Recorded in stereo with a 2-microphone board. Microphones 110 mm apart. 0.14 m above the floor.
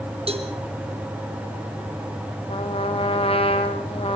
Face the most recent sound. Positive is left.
turn(degrees=60)  # may be behind; listen again after turning